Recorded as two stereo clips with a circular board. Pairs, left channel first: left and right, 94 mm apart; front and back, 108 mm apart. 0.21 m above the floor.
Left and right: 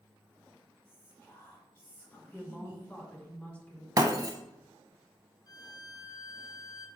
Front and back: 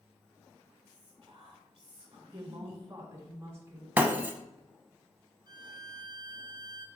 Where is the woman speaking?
150° left, 1.6 m.